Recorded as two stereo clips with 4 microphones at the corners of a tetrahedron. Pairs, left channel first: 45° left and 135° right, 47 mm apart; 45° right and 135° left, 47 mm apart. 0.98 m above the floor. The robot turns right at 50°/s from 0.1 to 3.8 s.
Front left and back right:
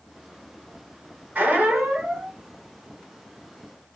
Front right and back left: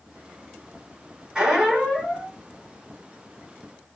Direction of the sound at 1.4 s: 155° right.